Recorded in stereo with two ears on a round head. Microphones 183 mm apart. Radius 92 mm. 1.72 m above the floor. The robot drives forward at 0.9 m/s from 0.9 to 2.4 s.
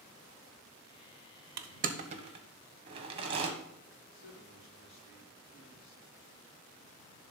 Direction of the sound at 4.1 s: 50° left (ahead or behind).